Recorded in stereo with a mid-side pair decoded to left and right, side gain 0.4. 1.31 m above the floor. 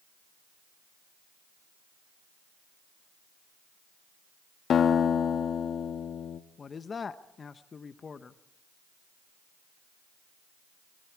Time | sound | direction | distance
4.7 | a guitar | 65° left | 1.3 m
6.6 | a man speaking | 40° left | 1.1 m